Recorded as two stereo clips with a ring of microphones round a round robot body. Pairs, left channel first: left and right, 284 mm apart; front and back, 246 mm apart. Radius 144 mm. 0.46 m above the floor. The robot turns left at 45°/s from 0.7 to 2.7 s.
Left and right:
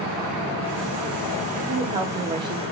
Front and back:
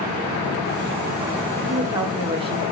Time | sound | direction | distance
1.7 | a woman speaking | 110° right | 0.8 m